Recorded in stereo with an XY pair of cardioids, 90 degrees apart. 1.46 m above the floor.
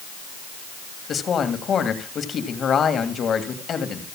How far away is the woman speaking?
About 1.8 m.